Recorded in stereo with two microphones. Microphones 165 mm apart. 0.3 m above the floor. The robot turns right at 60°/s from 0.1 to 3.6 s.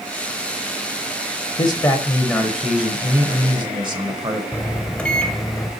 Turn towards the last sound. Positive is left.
turn(degrees=5)  # may be behind; listen again after turning